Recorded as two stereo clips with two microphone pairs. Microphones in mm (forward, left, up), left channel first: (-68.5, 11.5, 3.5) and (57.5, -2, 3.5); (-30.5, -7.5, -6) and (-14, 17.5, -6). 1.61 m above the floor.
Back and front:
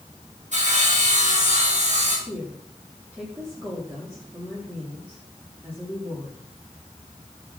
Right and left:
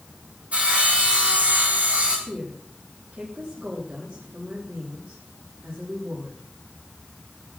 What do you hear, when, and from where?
0.5 s sawing: 15° left, 6.5 m
2.3 s a woman speaking: 70° left, 4 m